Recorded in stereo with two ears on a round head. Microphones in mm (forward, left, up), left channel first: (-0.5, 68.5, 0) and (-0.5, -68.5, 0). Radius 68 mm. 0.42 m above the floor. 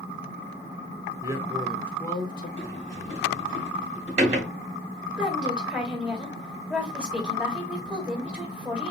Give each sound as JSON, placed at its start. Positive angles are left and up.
{"t": 1.2, "sound": "a man speaking", "side_deg": -25, "distance_m": 0.8}
{"t": 2.6, "sound": "a sliding door", "side_deg": -45, "distance_m": 2.5}
{"t": 5.2, "sound": "a woman speaking", "side_deg": -5, "distance_m": 1.8}